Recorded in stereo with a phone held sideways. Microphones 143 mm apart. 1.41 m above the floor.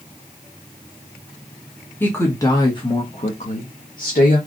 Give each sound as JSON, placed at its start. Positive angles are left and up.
{"t": 2.0, "sound": "a woman speaking", "side_deg": 15, "distance_m": 1.2}